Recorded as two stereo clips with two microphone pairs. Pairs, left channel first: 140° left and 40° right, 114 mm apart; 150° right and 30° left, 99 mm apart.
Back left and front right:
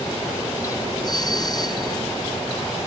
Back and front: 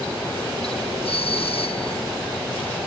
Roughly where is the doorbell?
Behind.